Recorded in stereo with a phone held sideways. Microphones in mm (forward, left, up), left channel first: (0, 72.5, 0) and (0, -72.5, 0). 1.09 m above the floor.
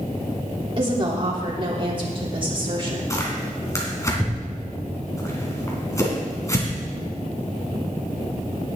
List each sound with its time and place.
0.8 s a woman speaking: 35° right (ahead or behind), 3 m
3.1 s tearing paper: 20° left (ahead or behind), 3 m